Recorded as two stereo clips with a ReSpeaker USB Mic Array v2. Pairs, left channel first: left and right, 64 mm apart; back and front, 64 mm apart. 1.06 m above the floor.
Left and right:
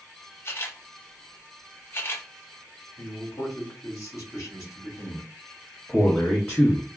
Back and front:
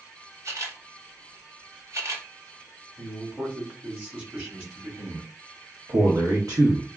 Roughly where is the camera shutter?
Ahead left.